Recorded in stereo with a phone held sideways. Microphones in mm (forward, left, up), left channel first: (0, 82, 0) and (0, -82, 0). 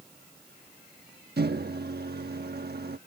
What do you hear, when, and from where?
1.4 s a microwave: 75° right (ahead or behind)